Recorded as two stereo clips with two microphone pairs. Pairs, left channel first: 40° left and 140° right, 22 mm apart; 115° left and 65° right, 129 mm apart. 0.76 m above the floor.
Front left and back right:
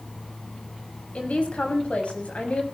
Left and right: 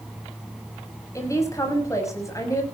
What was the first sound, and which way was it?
A woman speaking, 50° left.